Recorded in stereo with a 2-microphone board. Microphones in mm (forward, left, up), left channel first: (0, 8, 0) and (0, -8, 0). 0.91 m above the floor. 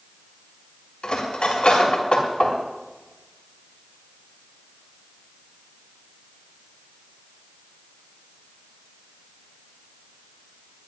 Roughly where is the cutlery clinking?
Left.